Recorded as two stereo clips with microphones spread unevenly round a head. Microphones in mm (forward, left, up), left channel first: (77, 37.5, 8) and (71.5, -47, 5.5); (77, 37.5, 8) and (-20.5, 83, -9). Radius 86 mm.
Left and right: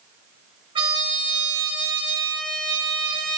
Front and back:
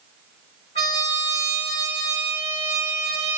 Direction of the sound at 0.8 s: 85° right.